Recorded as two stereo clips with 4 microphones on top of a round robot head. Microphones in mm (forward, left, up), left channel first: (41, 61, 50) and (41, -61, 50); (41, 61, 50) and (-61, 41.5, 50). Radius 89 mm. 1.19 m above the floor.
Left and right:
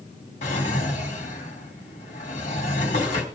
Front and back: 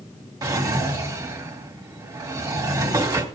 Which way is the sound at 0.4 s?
140° left.